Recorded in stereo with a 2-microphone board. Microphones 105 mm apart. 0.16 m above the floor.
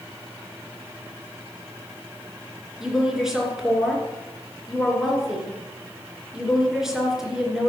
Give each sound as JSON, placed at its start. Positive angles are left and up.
{"t": 2.8, "sound": "a woman speaking", "side_deg": -5, "distance_m": 2.5}